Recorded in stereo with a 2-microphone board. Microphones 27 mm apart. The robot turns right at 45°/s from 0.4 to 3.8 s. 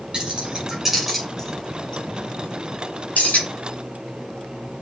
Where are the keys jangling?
35° right (ahead or behind), 7 m; by 3.5 s 75° left (ahead or behind), 7 m.